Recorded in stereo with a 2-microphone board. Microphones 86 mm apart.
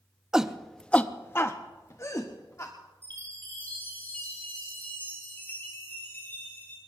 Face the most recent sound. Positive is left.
turn(degrees=20)  # may be behind; listen again after turning